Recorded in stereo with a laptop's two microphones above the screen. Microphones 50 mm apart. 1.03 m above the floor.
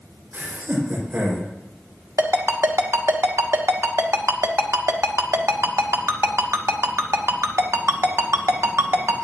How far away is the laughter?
About 4 m.